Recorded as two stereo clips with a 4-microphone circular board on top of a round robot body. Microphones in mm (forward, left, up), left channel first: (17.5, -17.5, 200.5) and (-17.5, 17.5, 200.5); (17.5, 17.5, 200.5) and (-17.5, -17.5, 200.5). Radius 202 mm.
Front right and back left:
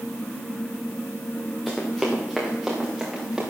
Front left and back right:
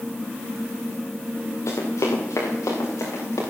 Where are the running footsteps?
45° left, 4 m; by 3.4 s 55° left, 5.5 m.